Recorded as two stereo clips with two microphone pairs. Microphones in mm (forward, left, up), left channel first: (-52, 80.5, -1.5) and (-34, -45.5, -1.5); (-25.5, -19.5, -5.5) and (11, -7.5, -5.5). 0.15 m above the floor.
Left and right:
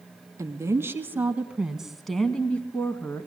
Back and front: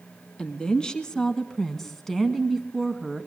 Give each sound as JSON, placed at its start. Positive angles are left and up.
{"t": 0.4, "sound": "a woman speaking", "azimuth_deg": -120, "distance_m": 1.8}